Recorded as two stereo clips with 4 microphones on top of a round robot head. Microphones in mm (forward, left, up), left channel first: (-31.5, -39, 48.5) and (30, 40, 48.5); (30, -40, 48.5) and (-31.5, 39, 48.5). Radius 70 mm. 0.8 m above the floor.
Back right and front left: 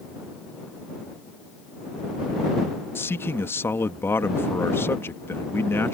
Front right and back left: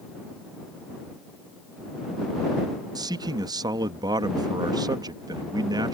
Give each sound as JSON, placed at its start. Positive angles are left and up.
{"t": 3.0, "sound": "a man speaking", "azimuth_deg": 165}